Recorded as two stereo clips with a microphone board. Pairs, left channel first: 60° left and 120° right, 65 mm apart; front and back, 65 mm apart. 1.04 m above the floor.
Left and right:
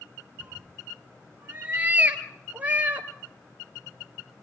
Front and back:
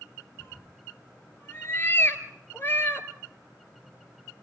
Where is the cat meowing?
55° right, 2.5 m.